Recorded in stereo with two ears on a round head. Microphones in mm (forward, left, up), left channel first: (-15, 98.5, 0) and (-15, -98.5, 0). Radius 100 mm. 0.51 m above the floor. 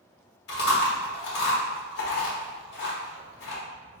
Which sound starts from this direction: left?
Chewing, at 0.5 s.